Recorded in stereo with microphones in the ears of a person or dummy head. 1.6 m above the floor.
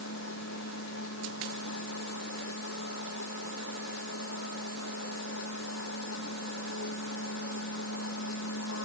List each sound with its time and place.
0.0 s a machine running: 80° left